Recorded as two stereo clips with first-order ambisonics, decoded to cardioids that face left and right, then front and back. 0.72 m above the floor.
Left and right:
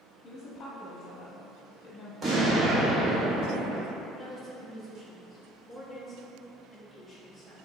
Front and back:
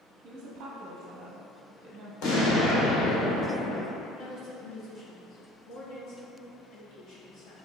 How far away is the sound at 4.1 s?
About 0.9 m.